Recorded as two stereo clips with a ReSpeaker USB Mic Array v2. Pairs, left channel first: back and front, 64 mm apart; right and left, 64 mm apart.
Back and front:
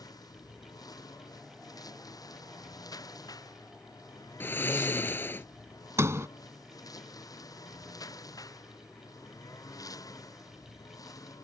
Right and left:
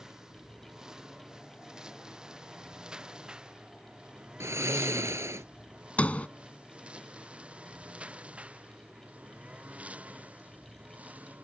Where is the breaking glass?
No breaking glass in this recording.